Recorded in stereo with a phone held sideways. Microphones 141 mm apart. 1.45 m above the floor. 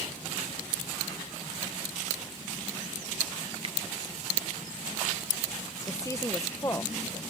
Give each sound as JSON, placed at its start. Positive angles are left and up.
{"t": 3.6, "sound": "a finger snap", "side_deg": -45}
{"t": 5.9, "sound": "a woman speaking", "side_deg": 20}